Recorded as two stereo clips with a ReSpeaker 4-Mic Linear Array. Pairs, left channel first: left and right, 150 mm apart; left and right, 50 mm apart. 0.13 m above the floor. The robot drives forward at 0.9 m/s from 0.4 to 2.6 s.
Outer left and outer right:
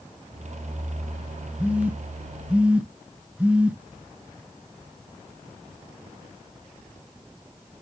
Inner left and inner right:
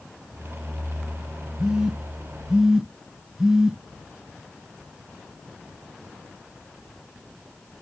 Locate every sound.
1.6 s a phone buzzing: 10° right (ahead or behind), 0.7 m